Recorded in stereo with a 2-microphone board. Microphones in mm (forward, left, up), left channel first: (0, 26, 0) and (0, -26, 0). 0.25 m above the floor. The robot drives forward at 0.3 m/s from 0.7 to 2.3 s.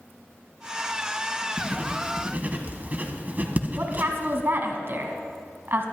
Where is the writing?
25° right (ahead or behind), 1.4 m; by 4.4 s 30° right (ahead or behind), 1.2 m.